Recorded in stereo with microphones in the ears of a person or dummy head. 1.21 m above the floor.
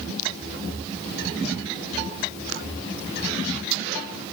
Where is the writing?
I don't hear writing.